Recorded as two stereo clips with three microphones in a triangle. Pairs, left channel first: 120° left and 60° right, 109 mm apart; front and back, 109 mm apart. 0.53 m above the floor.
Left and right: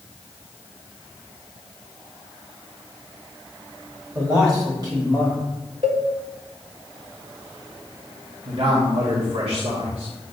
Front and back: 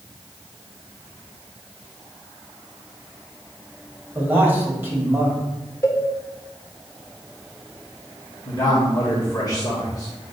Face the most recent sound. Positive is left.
turn(degrees=-50)